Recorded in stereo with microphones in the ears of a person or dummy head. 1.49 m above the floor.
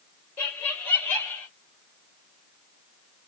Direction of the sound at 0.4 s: 15° left (ahead or behind).